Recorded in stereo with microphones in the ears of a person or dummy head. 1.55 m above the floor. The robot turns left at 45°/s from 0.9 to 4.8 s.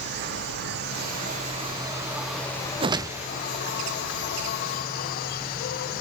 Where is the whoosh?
25° right (ahead or behind), 0.6 m; by 3.3 s 5° right (ahead or behind), 0.6 m.